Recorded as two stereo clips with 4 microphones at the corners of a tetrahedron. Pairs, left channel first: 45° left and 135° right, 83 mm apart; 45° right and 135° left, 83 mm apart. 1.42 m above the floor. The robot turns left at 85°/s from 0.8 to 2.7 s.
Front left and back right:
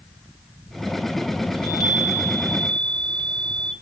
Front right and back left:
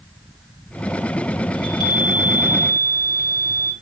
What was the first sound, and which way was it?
A chime, 20° right.